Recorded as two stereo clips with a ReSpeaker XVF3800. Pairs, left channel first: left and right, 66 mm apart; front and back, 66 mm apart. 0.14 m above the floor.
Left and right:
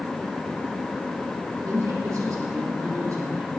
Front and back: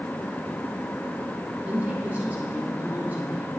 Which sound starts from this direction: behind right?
A woman speaking, at 1.6 s.